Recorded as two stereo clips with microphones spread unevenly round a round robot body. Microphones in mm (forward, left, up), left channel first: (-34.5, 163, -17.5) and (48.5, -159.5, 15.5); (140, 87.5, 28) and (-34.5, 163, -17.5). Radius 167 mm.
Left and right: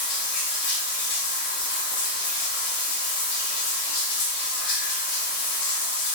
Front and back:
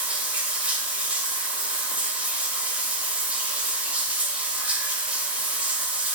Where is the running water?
100° left, 0.7 m.